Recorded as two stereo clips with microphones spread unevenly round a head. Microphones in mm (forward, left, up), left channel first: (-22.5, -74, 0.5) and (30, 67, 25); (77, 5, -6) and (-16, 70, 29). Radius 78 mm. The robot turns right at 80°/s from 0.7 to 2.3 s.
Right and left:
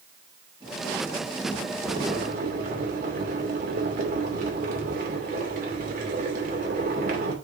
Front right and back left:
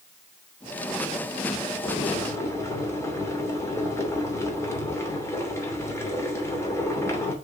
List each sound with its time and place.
1.9 s boiling: straight ahead, 2.5 m; by 7.3 s 35° left, 2.5 m